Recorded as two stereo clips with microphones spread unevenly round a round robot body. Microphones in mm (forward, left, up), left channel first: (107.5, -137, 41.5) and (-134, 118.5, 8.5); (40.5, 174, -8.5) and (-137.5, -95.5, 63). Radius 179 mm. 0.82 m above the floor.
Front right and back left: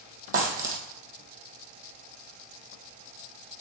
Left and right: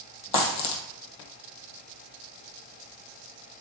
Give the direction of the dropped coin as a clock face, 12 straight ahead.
10 o'clock.